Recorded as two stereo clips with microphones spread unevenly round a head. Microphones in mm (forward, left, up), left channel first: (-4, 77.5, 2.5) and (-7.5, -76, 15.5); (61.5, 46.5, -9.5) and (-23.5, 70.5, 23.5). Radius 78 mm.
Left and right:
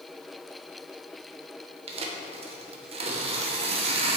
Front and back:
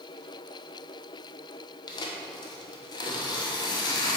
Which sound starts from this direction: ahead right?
Tearing paper, at 1.9 s.